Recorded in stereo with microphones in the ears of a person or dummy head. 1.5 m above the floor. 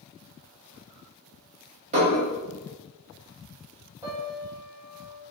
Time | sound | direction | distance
1.9 | dishes clattering | 35° right (ahead or behind) | 1.1 m
4.0 | a piano | 20° right (ahead or behind) | 1.1 m